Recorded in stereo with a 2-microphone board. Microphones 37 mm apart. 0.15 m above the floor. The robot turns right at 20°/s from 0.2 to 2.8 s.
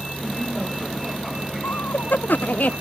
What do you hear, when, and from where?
0.0 s a vehicle: 175° left; by 2.8 s 135° right
1.6 s laughter: 65° left (ahead or behind); by 2.7 s 45° left (ahead or behind)